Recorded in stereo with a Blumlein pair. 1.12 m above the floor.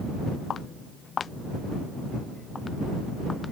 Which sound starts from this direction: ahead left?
Footsteps, at 0.5 s.